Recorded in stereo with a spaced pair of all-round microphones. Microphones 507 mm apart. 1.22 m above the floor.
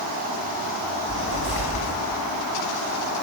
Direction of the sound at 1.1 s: 35° left (ahead or behind).